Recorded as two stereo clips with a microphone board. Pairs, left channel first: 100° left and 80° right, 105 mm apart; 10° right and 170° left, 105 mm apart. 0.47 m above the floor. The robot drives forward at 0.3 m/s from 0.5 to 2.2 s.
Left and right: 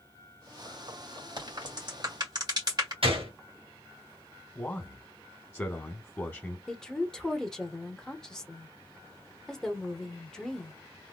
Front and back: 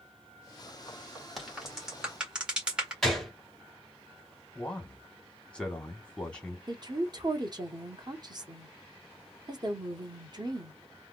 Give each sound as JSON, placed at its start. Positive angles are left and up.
{"t": 1.4, "sound": "a crack", "azimuth_deg": -105, "distance_m": 2.0}
{"t": 3.0, "sound": "a gunshot", "azimuth_deg": -100, "distance_m": 1.9}
{"t": 4.5, "sound": "a man speaking", "azimuth_deg": 60, "distance_m": 0.8}
{"t": 6.7, "sound": "a woman speaking", "azimuth_deg": 180, "distance_m": 0.9}